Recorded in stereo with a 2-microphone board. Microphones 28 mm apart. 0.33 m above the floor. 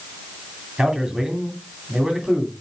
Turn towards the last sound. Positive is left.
turn(degrees=-25)  # may be behind; listen again after turning